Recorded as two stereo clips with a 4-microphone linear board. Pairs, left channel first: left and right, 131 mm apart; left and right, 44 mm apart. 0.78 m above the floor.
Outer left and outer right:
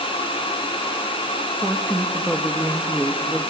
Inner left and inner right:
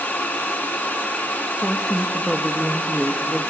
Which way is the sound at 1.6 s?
5° right (ahead or behind).